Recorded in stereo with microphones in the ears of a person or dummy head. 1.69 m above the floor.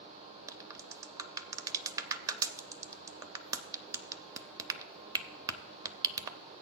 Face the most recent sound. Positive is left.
turn(degrees=-15)  # may be behind; listen again after turning